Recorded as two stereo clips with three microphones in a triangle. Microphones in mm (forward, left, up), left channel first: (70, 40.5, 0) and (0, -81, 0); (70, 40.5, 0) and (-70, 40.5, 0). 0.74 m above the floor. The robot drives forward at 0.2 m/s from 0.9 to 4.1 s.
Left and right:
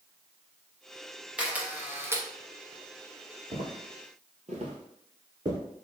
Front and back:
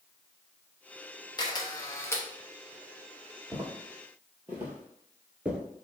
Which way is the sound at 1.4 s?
40° right.